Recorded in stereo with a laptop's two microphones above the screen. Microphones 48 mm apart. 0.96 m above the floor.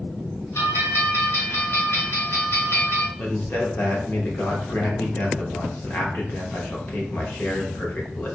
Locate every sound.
0.6 s a bell: 60° left (ahead or behind), 1.7 m
3.2 s a man speaking: 40° left (ahead or behind), 0.8 m